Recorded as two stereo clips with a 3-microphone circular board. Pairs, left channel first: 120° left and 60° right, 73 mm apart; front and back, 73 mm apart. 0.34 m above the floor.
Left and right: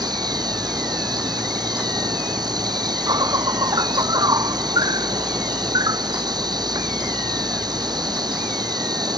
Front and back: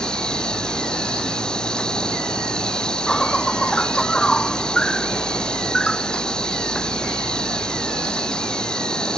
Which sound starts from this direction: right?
An insect, at 0.0 s.